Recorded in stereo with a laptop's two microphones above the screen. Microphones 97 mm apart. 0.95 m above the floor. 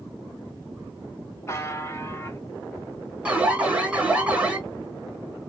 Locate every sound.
1.5 s a buzzer: 30° left (ahead or behind), 2 m
3.2 s an alarm: 10° right (ahead or behind), 1.9 m